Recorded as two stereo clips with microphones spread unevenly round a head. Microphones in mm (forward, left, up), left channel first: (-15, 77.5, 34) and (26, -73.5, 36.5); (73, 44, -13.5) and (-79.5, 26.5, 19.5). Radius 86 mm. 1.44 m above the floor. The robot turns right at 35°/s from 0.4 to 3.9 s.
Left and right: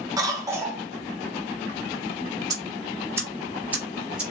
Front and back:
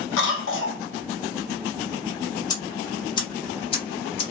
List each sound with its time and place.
0.2 s a cough: 5° right, 0.8 m; by 0.8 s 10° left, 0.8 m
2.5 s ticking: 55° right, 0.8 m; by 4.2 s 5° right, 0.8 m